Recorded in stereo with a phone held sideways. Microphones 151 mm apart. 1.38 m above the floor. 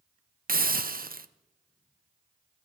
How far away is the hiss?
About 0.6 m.